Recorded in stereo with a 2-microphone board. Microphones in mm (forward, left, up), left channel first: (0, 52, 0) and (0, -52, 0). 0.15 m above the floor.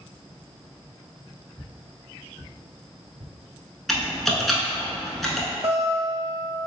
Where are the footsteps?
15° left (ahead or behind), 1.5 m; by 3.3 s 85° right, 1.0 m.